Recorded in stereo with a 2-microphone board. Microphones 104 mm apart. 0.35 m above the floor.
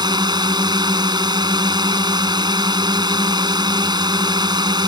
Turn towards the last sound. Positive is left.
turn(degrees=-45)  # may be behind; listen again after turning